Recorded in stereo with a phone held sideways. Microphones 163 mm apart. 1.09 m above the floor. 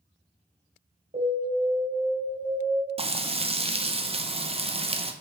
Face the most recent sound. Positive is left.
turn(degrees=-35)  # may be behind; listen again after turning